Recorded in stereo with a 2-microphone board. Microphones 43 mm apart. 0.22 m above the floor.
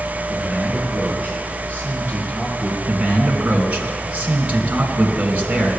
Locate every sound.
0.3 s a man speaking: 35° right (ahead or behind), 6 m
2.9 s a man speaking: 30° right (ahead or behind), 2 m